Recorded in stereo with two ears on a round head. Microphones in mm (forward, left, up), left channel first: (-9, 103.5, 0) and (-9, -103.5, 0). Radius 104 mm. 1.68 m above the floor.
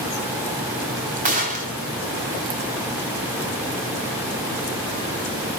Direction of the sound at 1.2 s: 35° right (ahead or behind).